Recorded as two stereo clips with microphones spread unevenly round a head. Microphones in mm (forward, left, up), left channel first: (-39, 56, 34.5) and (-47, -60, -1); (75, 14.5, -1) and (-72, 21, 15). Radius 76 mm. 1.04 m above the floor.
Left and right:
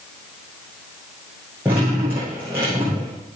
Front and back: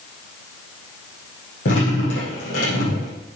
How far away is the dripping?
About 8.5 m.